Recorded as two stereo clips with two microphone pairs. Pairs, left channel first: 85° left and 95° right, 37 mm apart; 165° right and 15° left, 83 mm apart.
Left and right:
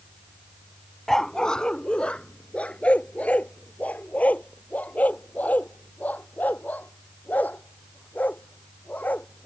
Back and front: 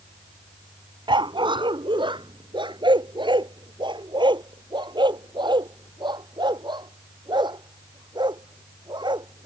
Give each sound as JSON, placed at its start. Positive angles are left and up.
{"t": 1.1, "sound": "a dog barking", "azimuth_deg": 5}